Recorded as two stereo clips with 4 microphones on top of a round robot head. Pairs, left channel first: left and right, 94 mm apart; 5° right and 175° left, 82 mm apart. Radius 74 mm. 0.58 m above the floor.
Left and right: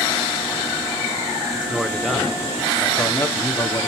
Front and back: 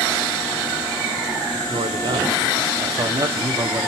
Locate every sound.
1.7 s a man speaking: 170° right, 1.7 m; by 3.9 s 130° left, 1.3 m